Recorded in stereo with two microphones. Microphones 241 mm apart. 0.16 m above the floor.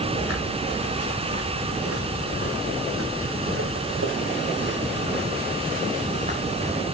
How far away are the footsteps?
About 6 m.